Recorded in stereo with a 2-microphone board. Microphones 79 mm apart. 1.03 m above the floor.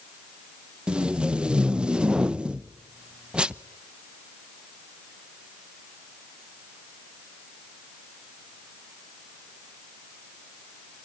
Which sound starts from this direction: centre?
Tape being pulled, at 0.9 s.